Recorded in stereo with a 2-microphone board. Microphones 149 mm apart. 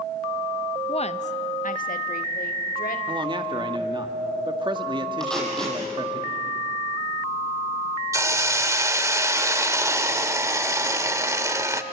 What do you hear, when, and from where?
0.9 s a woman speaking: 35° left (ahead or behind), 0.7 m; by 3.0 s 75° left (ahead or behind), 2.5 m
3.1 s a man speaking: 35° right (ahead or behind), 1.7 m
5.2 s tape being pulled: 5° left (ahead or behind), 6.5 m
8.1 s a hiss: 20° right (ahead or behind), 1.0 m